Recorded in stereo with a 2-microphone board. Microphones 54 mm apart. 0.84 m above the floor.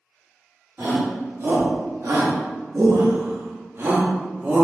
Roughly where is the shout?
Right.